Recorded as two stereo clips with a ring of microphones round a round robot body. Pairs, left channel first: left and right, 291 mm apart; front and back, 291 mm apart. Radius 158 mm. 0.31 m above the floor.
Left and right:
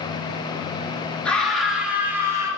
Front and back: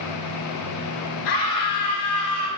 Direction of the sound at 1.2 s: 5° left.